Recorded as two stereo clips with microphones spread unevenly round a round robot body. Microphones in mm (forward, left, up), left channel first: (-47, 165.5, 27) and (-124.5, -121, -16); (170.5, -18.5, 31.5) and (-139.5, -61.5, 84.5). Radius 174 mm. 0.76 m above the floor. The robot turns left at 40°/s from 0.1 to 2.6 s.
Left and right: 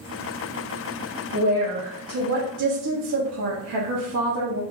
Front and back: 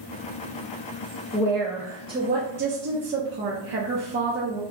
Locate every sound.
1.3 s a woman speaking: 65° right, 1.2 m; by 4.6 s 115° right, 1.2 m